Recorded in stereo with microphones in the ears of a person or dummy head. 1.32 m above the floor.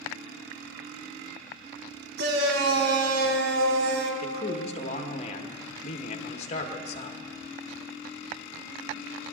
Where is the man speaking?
35° left (ahead or behind), 1.5 m.